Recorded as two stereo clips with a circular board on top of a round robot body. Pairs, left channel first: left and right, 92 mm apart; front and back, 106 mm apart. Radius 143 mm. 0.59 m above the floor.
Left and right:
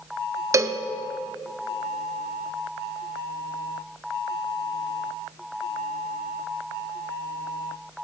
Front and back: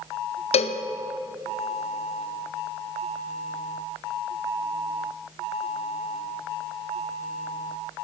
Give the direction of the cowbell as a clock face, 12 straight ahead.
1 o'clock.